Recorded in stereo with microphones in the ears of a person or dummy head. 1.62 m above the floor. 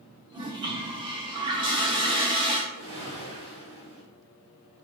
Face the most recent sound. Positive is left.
turn(degrees=-45)  # may be behind; listen again after turning